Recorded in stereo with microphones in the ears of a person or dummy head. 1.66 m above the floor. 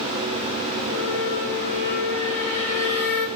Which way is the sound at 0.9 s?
65° left (ahead or behind).